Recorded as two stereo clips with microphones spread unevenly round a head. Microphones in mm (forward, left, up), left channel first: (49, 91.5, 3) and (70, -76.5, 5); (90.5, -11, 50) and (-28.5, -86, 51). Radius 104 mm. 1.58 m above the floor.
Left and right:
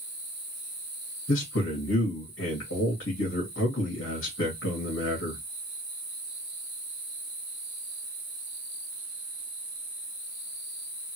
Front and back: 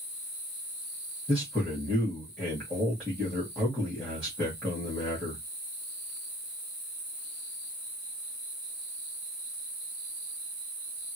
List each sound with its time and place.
1.3 s a man speaking: 120° left, 1.6 m